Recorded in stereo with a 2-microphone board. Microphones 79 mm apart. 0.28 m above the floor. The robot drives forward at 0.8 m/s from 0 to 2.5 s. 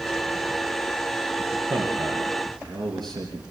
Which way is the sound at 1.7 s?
60° right (ahead or behind).